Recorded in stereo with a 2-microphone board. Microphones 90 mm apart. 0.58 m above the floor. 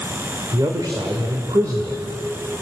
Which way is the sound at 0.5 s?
55° right (ahead or behind).